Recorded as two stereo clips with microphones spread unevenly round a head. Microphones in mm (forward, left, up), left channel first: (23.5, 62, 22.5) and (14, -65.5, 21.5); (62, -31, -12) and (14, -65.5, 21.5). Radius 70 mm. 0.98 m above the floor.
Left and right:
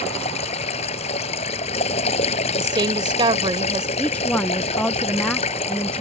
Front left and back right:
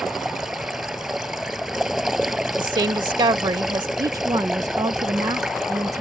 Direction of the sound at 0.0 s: 135° left.